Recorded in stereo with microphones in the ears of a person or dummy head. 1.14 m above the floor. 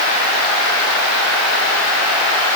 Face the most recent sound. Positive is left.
No sound to turn to.